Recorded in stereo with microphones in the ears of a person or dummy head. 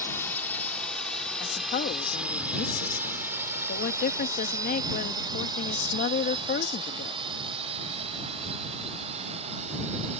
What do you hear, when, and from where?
0.0 s a drone: 15° left (ahead or behind); by 10.2 s 35° right (ahead or behind)
1.4 s a woman speaking: 50° left (ahead or behind)